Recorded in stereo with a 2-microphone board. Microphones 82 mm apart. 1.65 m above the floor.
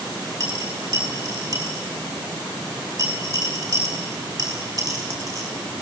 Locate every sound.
0.4 s a dropped coin: 45° right (ahead or behind), 4.5 m